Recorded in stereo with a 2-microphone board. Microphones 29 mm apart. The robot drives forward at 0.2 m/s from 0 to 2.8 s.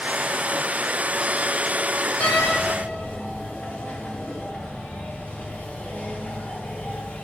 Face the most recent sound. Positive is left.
turn(degrees=85)